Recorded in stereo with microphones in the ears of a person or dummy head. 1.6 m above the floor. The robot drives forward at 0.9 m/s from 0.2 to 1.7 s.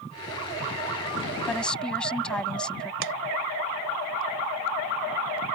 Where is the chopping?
70° right (ahead or behind).